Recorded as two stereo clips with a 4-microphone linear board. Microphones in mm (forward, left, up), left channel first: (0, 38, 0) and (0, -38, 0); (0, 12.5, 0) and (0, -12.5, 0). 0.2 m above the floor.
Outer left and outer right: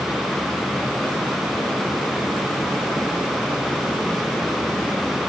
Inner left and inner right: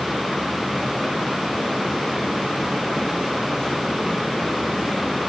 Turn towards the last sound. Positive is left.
No sound to turn to.